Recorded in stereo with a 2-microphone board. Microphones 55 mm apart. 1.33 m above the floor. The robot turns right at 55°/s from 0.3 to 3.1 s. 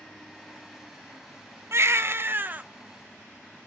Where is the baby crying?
90° right, 0.5 m; by 2.6 s 40° right, 0.5 m.